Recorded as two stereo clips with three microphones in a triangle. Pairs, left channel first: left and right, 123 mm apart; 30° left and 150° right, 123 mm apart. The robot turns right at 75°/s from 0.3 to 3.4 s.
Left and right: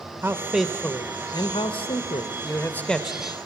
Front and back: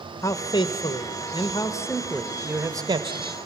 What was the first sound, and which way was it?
A man speaking, 25° right.